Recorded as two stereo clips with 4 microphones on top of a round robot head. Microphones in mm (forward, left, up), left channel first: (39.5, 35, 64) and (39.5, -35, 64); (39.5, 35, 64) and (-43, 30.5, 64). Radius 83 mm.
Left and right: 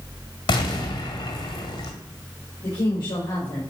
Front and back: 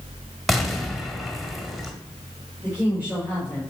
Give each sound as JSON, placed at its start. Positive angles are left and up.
{"t": 0.5, "sound": "an explosion", "azimuth_deg": 95, "distance_m": 1.9}
{"t": 2.6, "sound": "a woman speaking", "azimuth_deg": 115, "distance_m": 5.0}